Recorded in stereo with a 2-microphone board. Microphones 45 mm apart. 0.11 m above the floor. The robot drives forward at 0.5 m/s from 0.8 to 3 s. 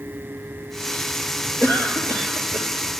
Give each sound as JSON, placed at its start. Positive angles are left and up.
{"t": 1.6, "sound": "a cough", "side_deg": 60, "distance_m": 3.0}